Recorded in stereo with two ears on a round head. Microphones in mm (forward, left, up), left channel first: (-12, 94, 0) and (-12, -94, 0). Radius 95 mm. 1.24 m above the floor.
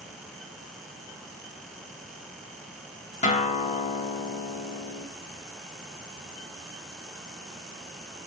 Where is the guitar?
35° left (ahead or behind), 1.5 m.